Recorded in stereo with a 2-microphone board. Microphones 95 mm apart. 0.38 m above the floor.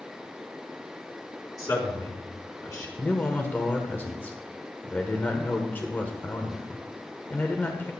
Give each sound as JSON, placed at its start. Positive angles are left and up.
{"t": 1.6, "sound": "a man speaking", "side_deg": 35, "distance_m": 4.0}
{"t": 3.0, "sound": "a man speaking", "side_deg": 20, "distance_m": 1.4}